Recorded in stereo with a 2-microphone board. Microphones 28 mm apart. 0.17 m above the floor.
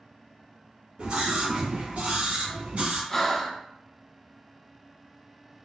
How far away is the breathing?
About 0.8 m.